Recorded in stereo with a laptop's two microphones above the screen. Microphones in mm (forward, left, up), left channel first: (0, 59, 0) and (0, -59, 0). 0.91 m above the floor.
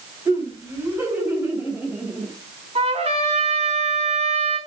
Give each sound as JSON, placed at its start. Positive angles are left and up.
{"t": 0.2, "sound": "laughter", "side_deg": -20, "distance_m": 5.0}
{"t": 2.8, "sound": "a trumpet", "side_deg": -60, "distance_m": 4.0}